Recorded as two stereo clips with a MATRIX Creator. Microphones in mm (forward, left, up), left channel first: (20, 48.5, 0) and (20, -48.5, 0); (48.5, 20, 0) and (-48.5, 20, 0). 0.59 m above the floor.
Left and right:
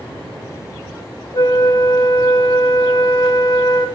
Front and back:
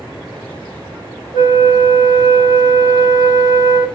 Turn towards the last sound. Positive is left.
turn(degrees=135)